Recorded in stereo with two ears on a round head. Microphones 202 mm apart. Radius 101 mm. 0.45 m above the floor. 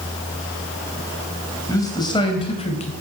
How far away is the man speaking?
About 2.5 m.